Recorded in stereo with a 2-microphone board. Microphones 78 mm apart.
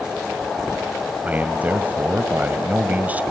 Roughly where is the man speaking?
Right.